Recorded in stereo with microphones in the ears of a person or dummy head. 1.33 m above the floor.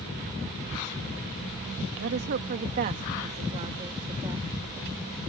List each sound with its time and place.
2.0 s a woman speaking: 60° right (ahead or behind); by 4.5 s 20° right (ahead or behind)